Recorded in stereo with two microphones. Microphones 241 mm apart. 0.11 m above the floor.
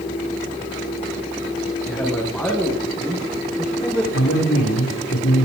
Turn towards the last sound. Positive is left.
turn(degrees=75)  # may be behind; listen again after turning